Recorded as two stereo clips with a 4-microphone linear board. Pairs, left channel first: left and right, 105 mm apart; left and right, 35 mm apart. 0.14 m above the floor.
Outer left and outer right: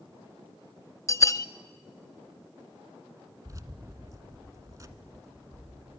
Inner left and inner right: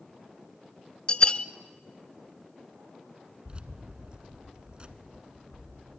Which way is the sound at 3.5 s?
30° right (ahead or behind).